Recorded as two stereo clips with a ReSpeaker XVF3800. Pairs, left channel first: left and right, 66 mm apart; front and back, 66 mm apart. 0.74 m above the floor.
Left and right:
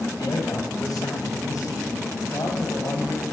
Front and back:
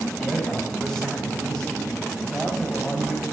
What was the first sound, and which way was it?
A man speaking, 80° left.